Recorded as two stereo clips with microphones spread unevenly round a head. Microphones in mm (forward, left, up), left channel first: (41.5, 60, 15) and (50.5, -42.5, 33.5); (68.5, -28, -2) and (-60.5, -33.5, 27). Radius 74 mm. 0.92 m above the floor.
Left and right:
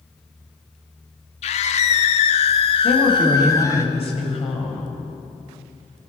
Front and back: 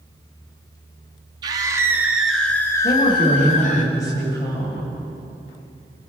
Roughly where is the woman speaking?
Left.